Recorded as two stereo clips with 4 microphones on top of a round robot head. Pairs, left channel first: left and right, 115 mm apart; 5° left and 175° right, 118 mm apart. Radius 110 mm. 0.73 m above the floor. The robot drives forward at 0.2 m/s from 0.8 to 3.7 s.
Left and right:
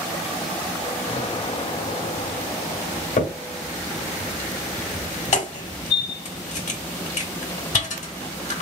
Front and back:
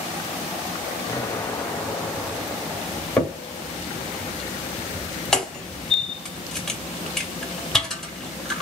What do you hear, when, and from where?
1.1 s an explosion: 65° left, 0.6 m; by 3.1 s 110° left, 0.6 m
3.2 s a crack: 85° left, 1.4 m; by 8.6 s 90° left, 1.4 m